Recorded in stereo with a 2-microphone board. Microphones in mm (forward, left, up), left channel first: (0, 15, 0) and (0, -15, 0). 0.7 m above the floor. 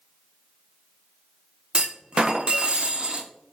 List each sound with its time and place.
1.7 s a clunk: 30° right (ahead or behind), 0.5 m